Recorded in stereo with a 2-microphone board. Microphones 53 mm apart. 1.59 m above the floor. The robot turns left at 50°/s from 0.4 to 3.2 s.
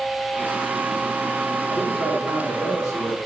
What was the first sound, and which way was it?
A man speaking, 140° left.